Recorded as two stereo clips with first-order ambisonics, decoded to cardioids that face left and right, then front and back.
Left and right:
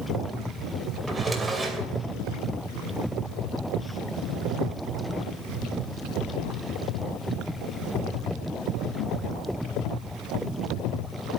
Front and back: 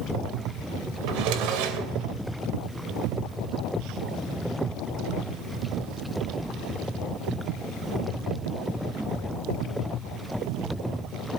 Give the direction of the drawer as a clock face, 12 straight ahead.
6 o'clock.